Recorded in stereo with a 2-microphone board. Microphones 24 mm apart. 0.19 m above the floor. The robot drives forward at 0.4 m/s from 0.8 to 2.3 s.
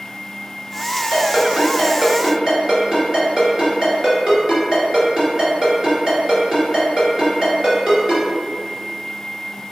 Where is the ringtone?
35° right (ahead or behind), 1.8 m; by 8.2 s 30° right (ahead or behind), 2 m.